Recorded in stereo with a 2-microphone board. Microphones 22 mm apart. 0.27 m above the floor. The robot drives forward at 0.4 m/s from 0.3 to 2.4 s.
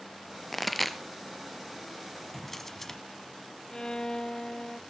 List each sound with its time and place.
0.5 s a pop: centre (ahead or behind), 0.9 m; by 1.0 s 5° left (ahead or behind), 0.7 m
2.3 s a drawer: 10° left (ahead or behind), 1.0 m
3.7 s a violin: 30° left (ahead or behind), 0.6 m